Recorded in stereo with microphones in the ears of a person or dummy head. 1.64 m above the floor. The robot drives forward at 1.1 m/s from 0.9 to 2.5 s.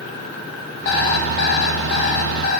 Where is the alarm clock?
60° left (ahead or behind), 2 m; by 2.6 s 50° left (ahead or behind), 2 m.